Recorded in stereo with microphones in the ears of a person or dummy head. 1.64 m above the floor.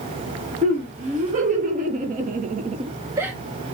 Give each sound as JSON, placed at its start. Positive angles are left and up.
{"t": 0.6, "sound": "laughter", "side_deg": -40, "distance_m": 1.9}